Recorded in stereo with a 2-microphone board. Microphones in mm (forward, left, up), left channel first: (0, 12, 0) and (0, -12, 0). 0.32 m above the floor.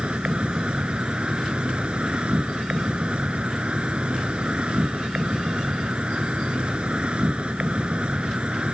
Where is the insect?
50° right (ahead or behind).